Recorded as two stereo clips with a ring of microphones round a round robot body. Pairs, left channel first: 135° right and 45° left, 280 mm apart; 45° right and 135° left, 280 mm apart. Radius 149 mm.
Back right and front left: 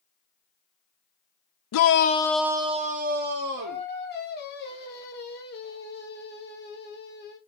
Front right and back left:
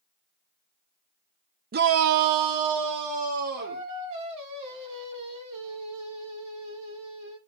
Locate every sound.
1.7 s a shout: 165° right, 0.6 m; by 3.9 s 95° left, 1.9 m
3.6 s singing: 165° left, 1.9 m